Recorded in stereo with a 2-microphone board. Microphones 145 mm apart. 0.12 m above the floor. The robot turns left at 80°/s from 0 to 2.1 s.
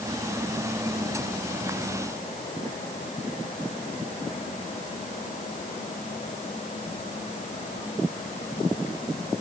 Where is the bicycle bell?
No bicycle bell in this recording.